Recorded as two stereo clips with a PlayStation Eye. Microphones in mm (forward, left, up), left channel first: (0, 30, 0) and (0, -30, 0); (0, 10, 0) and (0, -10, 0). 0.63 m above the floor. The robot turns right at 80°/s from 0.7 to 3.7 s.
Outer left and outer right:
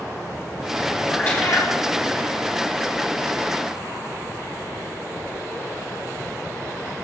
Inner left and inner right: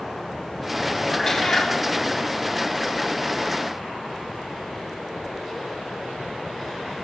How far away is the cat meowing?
About 2.5 m.